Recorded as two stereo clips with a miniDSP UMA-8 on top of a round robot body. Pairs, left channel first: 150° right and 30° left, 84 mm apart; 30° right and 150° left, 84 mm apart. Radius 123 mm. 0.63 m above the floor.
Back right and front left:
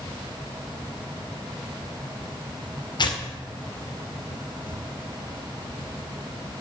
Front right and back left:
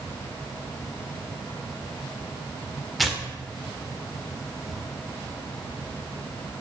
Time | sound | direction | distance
3.0 | tearing paper | 120° right | 2 m